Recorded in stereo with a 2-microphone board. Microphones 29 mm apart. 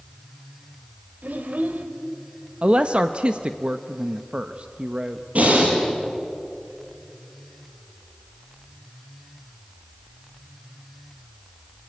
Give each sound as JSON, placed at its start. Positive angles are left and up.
{"t": 1.2, "sound": "a child speaking", "side_deg": -70, "distance_m": 2.5}
{"t": 2.6, "sound": "a woman speaking", "side_deg": -40, "distance_m": 0.7}
{"t": 5.3, "sound": "breathing", "side_deg": -55, "distance_m": 7.5}